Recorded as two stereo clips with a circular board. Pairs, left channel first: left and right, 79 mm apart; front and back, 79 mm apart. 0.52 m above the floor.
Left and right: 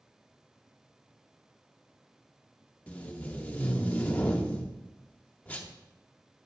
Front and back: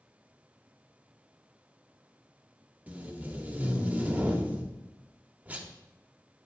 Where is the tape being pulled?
135° left, 0.8 m.